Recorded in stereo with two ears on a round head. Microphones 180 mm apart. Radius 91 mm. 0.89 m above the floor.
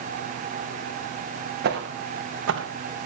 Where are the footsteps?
55° right (ahead or behind), 3.5 m; by 2.7 s 70° right (ahead or behind), 2.5 m.